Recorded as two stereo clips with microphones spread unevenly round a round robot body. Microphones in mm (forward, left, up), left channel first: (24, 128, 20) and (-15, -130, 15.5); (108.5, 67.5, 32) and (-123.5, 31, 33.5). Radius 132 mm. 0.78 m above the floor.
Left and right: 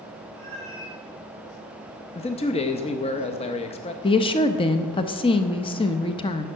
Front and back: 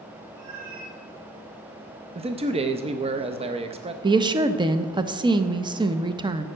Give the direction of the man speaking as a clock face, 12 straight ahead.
7 o'clock.